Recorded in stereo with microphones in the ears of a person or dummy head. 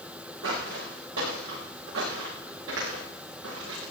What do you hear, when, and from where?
0.4 s footsteps: 75° right (ahead or behind), 7.5 m; by 3.9 s 80° right, 9.5 m